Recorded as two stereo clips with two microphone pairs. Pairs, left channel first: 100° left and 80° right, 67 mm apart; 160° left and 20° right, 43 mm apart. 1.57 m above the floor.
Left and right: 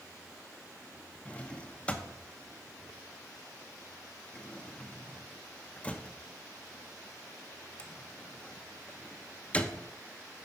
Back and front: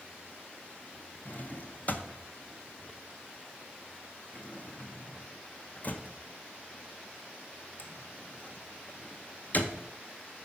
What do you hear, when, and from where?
1.2 s a drawer: 160° left, 0.8 m